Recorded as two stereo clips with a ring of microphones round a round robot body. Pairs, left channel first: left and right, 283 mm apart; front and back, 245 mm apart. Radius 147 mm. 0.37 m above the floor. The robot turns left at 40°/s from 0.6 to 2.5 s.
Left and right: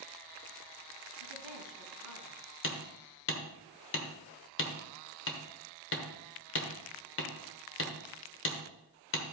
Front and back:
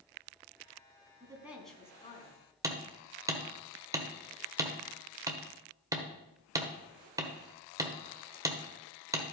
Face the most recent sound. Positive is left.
turn(degrees=110)